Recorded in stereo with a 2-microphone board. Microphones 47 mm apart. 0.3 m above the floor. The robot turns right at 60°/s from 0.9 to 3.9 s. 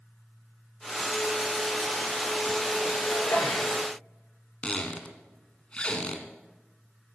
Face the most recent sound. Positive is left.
turn(degrees=25)  # may be behind; listen again after turning